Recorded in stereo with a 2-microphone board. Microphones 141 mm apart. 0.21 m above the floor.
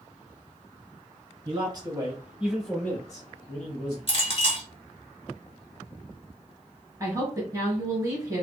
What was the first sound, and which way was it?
A man speaking, 40° right (ahead or behind).